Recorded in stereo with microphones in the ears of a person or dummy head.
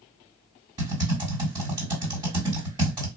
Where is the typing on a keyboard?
15° right (ahead or behind), 2.5 m.